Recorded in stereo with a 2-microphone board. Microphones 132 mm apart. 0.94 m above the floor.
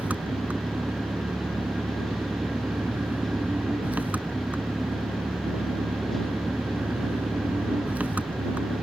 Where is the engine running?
10° right (ahead or behind).